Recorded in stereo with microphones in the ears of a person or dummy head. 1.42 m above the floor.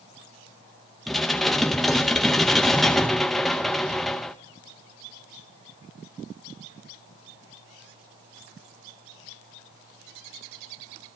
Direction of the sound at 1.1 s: 5° left (ahead or behind).